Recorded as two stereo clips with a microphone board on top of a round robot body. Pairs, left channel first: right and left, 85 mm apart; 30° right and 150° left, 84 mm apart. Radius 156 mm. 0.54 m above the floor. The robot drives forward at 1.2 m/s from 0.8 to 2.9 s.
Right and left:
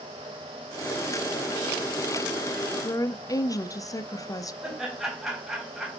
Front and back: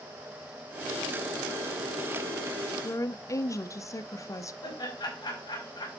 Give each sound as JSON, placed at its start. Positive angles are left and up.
{"t": 2.8, "sound": "a woman speaking", "azimuth_deg": -60, "distance_m": 0.9}
{"t": 4.6, "sound": "laughter", "azimuth_deg": 5, "distance_m": 4.5}